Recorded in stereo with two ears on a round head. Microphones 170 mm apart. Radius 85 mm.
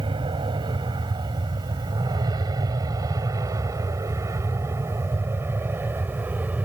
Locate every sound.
0.0 s an aircraft: 25° right (ahead or behind); by 6.7 s 10° right (ahead or behind)